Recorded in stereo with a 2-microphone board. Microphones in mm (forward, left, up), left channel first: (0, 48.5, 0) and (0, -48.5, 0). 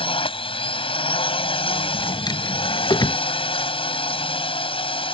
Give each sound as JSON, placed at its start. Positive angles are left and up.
{"t": 0.0, "sound": "a drone", "side_deg": 70}
{"t": 1.9, "sound": "a drawer", "side_deg": 45}